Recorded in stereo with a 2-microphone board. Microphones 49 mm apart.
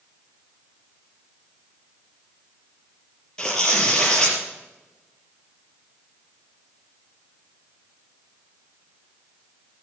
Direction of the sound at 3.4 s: 15° left (ahead or behind).